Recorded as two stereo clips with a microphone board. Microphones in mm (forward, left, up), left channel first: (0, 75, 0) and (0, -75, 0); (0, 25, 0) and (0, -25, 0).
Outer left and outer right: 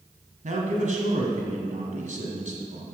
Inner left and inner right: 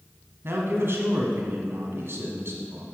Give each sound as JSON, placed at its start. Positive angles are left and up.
{"t": 0.4, "sound": "a man speaking", "side_deg": -55, "distance_m": 1.7}